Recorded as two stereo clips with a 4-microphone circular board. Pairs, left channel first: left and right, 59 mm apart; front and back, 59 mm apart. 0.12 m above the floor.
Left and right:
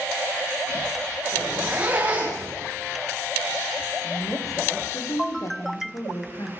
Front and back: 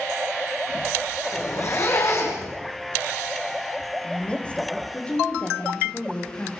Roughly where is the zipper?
Ahead right.